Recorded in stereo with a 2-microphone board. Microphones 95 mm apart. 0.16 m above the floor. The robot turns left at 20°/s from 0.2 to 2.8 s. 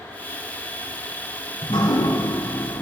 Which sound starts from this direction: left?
Dripping, at 1.6 s.